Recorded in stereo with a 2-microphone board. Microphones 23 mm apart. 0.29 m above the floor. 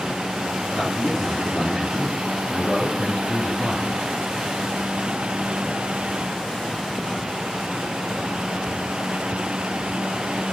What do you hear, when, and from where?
0.7 s a man speaking: 25° left (ahead or behind), 3.5 m; by 4.0 s 50° left (ahead or behind), 1.9 m